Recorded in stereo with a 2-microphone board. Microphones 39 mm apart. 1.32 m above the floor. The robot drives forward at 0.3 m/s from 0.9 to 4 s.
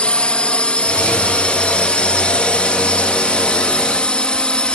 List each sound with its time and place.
0.0 s a drone: 30° left (ahead or behind)